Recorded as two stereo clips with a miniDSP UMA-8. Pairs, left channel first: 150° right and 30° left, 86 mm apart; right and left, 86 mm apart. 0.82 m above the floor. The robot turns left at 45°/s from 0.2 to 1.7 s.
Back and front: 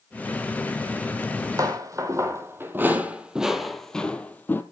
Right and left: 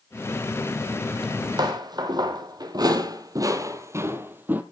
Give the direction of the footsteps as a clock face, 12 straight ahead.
9 o'clock.